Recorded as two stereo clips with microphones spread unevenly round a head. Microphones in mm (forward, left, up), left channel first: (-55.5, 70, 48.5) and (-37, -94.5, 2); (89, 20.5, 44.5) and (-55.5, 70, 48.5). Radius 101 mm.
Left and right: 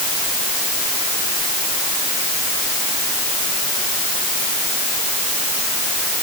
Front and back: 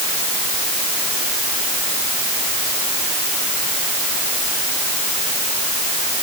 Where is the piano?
I don't hear a piano.